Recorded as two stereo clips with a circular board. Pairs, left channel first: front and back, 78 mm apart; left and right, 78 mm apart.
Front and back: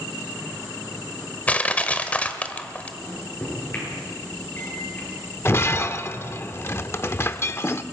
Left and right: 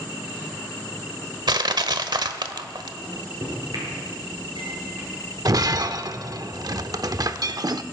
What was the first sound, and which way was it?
Crushing, 70° right.